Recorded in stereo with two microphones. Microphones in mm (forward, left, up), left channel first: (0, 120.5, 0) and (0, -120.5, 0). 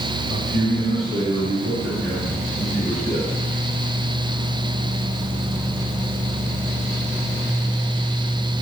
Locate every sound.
0.3 s a man speaking: 25° right (ahead or behind), 2.5 m; by 3.3 s 45° right (ahead or behind), 4 m